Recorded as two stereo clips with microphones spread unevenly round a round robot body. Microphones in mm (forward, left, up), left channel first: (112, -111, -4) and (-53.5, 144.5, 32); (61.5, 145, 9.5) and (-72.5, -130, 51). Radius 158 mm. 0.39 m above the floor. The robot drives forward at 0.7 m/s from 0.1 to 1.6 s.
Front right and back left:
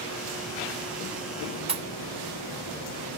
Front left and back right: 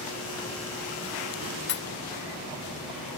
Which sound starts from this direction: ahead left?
A pop, at 1.7 s.